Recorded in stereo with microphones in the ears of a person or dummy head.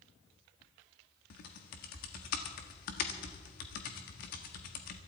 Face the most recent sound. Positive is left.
turn(degrees=60)  # may be behind; listen again after turning